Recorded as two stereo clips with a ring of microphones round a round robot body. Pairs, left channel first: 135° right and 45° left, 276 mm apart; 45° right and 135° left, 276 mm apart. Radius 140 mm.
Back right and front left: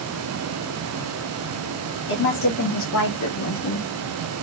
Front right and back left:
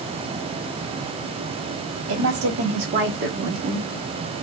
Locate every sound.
2.1 s a woman speaking: 170° left, 1.9 m; by 3.9 s 155° right, 1.5 m